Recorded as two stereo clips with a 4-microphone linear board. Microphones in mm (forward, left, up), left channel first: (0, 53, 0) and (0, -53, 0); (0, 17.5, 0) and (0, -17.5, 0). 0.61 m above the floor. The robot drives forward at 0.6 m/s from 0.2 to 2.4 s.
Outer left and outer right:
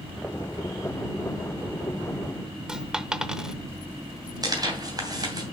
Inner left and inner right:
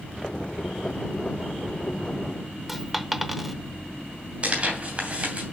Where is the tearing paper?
40° right (ahead or behind), 2.5 m.